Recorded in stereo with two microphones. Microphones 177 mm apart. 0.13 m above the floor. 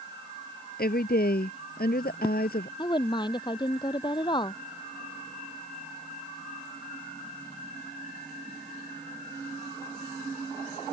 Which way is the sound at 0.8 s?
60° left (ahead or behind).